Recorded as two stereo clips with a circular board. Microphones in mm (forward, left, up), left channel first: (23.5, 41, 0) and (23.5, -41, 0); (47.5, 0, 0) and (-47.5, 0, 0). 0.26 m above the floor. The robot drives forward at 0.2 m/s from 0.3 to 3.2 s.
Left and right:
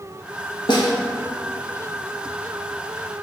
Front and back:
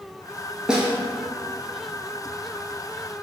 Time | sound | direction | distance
0.7 | a snare drum | 100° left | 0.7 m